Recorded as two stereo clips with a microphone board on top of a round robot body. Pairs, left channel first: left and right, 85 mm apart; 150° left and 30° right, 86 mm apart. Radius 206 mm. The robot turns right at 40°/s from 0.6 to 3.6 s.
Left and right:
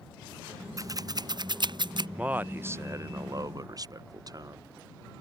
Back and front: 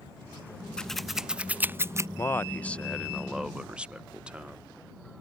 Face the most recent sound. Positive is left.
turn(degrees=-105)